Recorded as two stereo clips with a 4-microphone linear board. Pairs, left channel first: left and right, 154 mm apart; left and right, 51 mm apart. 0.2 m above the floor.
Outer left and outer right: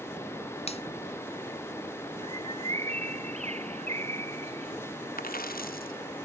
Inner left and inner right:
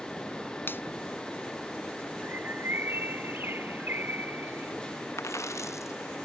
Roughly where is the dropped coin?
Left.